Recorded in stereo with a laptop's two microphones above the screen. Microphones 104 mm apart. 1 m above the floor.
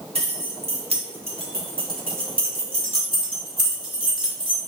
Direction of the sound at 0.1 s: 75° right (ahead or behind).